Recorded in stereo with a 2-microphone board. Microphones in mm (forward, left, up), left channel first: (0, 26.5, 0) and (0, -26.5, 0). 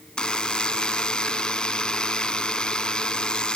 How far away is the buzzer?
About 0.7 m.